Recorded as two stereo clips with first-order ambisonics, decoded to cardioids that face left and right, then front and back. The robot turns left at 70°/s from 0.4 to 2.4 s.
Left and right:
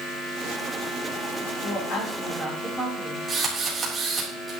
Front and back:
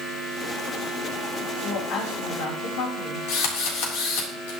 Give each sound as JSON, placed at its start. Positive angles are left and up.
{"t": 1.6, "sound": "a woman speaking", "azimuth_deg": 60, "distance_m": 4.0}
{"t": 3.3, "sound": "a drill", "azimuth_deg": -10, "distance_m": 4.0}